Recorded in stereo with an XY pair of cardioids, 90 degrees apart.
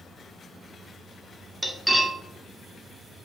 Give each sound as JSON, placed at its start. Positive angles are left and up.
{"t": 1.6, "sound": "cutlery clinking", "azimuth_deg": 0, "distance_m": 1.1}